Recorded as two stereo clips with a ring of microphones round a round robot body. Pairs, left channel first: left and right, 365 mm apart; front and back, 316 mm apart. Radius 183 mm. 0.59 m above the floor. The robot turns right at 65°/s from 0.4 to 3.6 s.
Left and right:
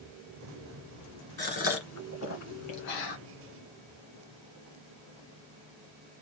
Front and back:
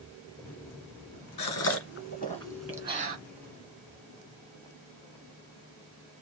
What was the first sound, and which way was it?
A gasp, 10° left.